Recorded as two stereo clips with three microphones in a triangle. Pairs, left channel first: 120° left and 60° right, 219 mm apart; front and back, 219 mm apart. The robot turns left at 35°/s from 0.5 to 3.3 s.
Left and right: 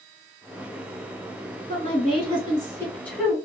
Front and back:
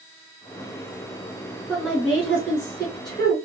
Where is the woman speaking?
95° left, 1.5 m; by 3.5 s 40° left, 1.5 m.